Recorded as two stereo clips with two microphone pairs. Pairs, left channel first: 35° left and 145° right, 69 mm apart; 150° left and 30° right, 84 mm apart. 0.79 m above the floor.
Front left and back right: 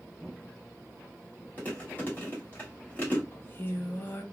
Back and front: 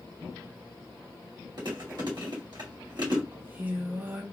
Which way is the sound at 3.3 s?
15° left.